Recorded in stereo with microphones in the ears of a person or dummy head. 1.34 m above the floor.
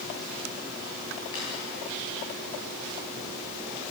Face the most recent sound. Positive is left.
turn(degrees=25)  # may be behind; listen again after turning